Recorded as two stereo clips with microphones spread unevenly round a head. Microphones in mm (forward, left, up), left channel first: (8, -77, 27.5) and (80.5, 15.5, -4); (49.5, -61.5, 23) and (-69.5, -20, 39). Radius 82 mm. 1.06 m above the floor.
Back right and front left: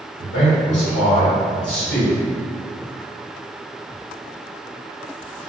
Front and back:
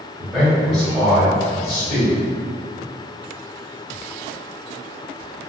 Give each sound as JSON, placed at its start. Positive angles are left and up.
{"t": 0.2, "sound": "a man speaking", "azimuth_deg": -115, "distance_m": 1.2}